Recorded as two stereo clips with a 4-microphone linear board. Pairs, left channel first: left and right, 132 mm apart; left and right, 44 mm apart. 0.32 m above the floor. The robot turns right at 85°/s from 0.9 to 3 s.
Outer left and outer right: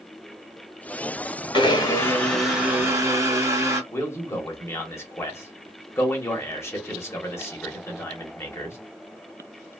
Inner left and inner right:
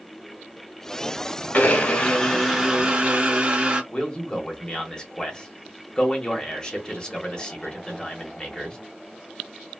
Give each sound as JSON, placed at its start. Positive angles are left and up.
{"t": 1.5, "sound": "a blender", "azimuth_deg": 105, "distance_m": 1.0}
{"t": 3.9, "sound": "a man speaking", "side_deg": 20, "distance_m": 1.1}